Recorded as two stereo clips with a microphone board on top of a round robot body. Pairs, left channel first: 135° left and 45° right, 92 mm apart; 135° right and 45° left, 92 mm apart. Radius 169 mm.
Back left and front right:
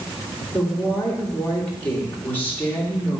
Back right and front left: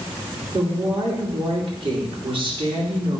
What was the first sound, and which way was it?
A woman speaking, 65° left.